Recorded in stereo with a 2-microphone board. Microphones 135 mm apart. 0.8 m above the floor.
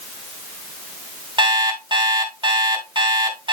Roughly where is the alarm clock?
Right.